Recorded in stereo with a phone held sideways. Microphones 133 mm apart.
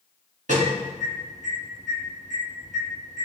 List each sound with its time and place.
0.5 s an alarm: 70° right (ahead or behind), 1.9 m